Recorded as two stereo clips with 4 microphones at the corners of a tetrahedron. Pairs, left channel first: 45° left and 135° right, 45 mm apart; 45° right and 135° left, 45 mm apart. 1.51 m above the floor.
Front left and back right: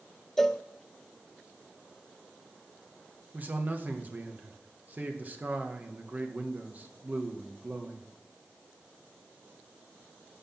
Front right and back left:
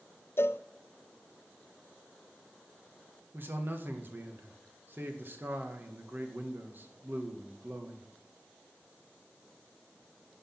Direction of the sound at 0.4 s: 35° right.